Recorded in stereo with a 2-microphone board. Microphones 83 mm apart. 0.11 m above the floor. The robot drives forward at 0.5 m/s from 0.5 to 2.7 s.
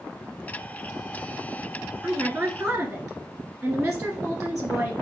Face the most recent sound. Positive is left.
turn(degrees=-20)  # may be behind; listen again after turning